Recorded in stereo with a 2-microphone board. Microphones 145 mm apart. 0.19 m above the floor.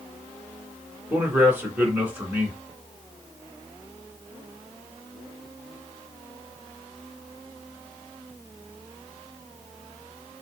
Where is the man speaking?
10° right (ahead or behind), 2.5 m.